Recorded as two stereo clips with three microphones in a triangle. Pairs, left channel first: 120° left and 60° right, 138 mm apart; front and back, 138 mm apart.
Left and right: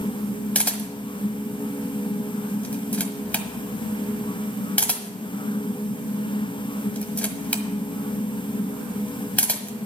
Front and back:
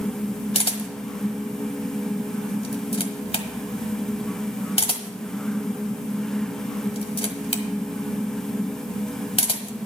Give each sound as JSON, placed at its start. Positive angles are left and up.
{"t": 0.6, "sound": "a camera shutter", "azimuth_deg": 40, "distance_m": 1.3}